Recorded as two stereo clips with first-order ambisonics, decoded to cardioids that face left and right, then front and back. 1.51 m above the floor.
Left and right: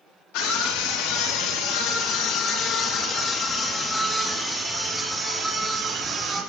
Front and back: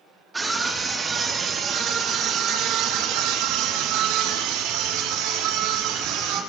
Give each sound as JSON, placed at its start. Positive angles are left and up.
{"t": 0.3, "sound": "a scream", "azimuth_deg": 100, "distance_m": 3.5}